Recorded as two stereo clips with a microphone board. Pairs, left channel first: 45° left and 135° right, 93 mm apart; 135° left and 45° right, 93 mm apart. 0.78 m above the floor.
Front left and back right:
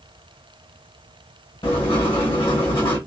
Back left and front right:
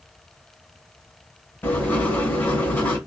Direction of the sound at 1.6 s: 70° left.